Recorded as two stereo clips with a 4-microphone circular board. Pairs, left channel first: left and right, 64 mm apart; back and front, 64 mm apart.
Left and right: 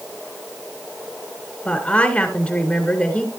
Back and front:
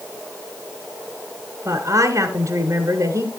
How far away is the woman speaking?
About 2 m.